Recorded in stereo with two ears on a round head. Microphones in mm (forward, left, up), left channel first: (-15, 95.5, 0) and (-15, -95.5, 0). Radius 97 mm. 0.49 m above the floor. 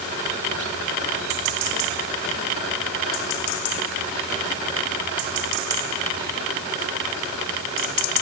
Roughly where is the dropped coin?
No dropped coin in this recording.